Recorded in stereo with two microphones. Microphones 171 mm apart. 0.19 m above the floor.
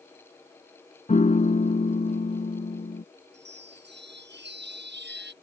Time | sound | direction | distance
1.1 | a piano | 45° left (ahead or behind) | ?
3.3 | a chime | 85° right | ?